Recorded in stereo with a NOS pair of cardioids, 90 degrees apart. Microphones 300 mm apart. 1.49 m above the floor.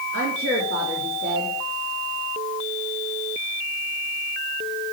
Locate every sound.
0.1 s a woman speaking: 45° right, 3 m